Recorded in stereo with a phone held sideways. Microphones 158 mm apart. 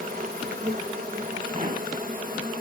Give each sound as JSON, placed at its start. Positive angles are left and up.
{"t": 0.0, "sound": "an insect", "side_deg": -60, "distance_m": 2.5}
{"t": 1.5, "sound": "a pop", "side_deg": -50, "distance_m": 3.0}